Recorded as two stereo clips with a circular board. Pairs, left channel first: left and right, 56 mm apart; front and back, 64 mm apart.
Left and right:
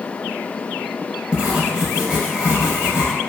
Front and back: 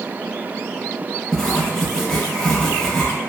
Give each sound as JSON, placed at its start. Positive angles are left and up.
{"t": 1.3, "sound": "writing", "azimuth_deg": -55, "distance_m": 0.7}